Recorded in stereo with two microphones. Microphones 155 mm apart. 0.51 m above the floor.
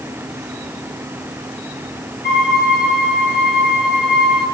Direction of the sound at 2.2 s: 80° left.